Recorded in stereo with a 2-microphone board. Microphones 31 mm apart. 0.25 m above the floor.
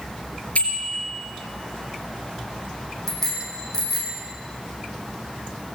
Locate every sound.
0.6 s a bicycle bell: 45° left (ahead or behind), 3.5 m
3.1 s a bicycle bell: 10° left (ahead or behind), 7.5 m